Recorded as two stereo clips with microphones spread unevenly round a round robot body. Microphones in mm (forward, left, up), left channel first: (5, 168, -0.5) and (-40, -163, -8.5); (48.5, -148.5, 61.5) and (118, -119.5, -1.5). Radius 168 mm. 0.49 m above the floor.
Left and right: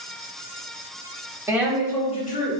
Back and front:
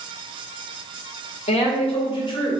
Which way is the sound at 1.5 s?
170° right.